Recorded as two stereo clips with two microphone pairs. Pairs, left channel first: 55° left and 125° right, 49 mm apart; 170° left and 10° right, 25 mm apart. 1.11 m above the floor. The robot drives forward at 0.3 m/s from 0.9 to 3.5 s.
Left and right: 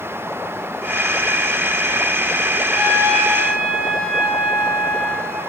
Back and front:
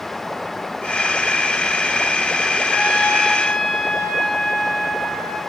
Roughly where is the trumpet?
Behind left.